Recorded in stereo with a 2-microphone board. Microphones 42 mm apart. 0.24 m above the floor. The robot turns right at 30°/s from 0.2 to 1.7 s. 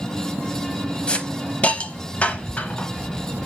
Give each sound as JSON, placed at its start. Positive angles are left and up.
{"t": 1.1, "sound": "a hiss", "side_deg": 25, "distance_m": 0.7}